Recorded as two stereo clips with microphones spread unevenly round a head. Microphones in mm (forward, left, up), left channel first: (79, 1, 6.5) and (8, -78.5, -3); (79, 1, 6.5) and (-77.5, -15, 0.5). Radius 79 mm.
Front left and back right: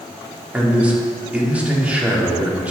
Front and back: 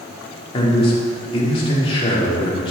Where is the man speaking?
55° right, 3 m.